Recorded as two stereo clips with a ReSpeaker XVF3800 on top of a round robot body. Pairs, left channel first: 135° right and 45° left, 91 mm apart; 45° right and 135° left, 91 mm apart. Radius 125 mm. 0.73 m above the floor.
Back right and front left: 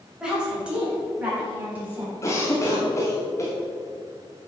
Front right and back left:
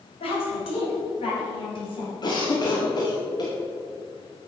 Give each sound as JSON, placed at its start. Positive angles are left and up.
{"t": 0.2, "sound": "a woman speaking", "azimuth_deg": -35, "distance_m": 4.0}
{"t": 2.2, "sound": "a cough", "azimuth_deg": -80, "distance_m": 2.5}